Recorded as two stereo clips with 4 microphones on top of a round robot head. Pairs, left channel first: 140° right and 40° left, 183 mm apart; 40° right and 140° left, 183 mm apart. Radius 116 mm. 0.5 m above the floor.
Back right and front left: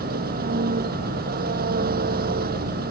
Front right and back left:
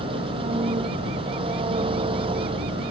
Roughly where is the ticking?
No ticking in this recording.